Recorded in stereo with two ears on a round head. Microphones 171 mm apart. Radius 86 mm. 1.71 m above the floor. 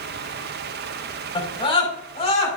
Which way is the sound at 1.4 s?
30° left (ahead or behind).